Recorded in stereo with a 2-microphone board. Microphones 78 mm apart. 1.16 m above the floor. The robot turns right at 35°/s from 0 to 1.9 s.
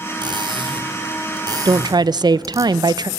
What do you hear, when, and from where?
0.2 s cutlery clinking: 75° right (ahead or behind), 3 m; by 2.6 s 45° right (ahead or behind), 3 m
1.6 s a woman speaking: 70° right (ahead or behind), 0.6 m; by 3.1 s 65° right (ahead or behind), 0.6 m